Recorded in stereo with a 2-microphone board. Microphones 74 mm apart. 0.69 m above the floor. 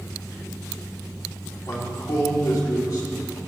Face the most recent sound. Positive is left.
turn(degrees=65)  # may be behind; listen again after turning